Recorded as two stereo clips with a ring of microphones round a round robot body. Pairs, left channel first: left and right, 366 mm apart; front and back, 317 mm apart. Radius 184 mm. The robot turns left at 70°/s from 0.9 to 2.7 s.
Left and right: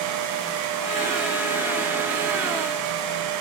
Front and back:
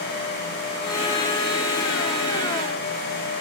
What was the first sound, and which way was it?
Only background noise.